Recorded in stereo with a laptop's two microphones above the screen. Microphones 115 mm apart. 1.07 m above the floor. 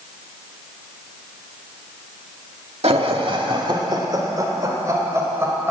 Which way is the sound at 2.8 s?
55° right (ahead or behind).